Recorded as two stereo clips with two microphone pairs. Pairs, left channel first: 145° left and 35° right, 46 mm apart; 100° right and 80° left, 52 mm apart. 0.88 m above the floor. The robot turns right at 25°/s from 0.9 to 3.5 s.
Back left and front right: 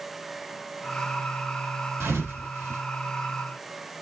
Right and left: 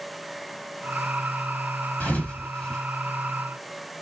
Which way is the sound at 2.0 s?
40° right.